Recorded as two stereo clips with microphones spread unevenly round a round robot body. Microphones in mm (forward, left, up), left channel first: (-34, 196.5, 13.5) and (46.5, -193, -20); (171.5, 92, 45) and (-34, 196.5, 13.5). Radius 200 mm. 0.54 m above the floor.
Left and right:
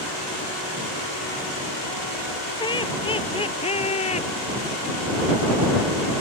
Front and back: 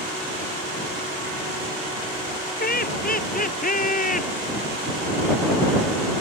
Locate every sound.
2.6 s laughter: 25° left